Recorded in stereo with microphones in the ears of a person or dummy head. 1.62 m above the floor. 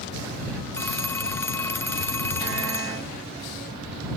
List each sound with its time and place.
0.7 s a phone ringing: 15° left (ahead or behind)